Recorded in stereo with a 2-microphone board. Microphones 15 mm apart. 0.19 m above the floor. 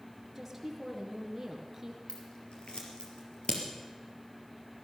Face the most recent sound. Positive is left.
turn(degrees=70)  # may be behind; listen again after turning